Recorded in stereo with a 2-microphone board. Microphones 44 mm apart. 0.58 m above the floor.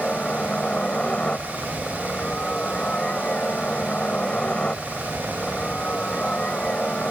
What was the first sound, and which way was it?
A helicopter, 25° left (ahead or behind).